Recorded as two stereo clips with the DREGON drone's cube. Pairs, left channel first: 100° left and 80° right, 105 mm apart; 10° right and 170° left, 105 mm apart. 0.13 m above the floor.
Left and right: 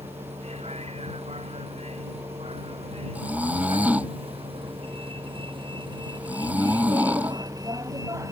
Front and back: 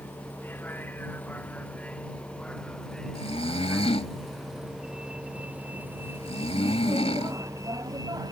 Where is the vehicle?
80° right; by 8.3 s 140° right.